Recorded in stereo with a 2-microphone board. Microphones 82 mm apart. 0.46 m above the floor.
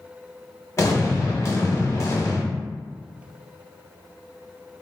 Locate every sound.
0.8 s an explosion: 35° left (ahead or behind), 1.0 m